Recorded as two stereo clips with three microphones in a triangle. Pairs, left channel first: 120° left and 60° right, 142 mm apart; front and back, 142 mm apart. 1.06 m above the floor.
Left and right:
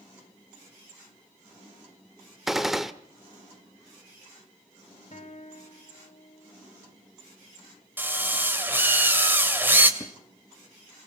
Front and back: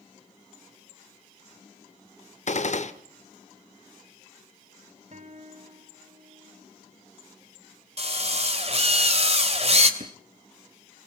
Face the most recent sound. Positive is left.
turn(degrees=180)